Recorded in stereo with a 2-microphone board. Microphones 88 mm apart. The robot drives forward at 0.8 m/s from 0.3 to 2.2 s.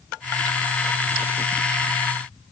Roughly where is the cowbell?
I don't hear a cowbell.